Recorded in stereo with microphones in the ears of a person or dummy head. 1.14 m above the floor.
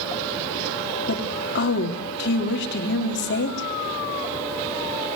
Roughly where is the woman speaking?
Left.